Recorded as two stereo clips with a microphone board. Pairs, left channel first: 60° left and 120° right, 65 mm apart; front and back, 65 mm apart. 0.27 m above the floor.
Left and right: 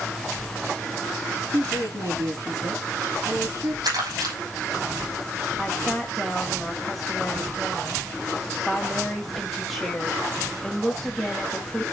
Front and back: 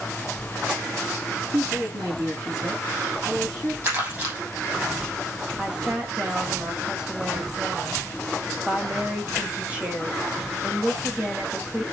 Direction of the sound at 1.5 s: 150° right.